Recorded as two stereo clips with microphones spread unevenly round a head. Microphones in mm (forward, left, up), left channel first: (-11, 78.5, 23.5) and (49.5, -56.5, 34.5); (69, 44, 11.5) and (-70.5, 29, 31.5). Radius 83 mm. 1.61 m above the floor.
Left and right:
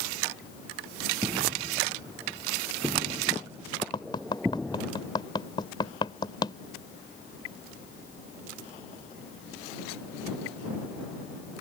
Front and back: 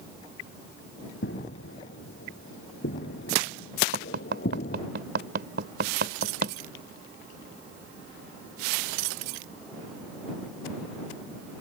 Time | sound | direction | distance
1.2 | footsteps | 5° left | ?
3.9 | tapping | straight behind | ?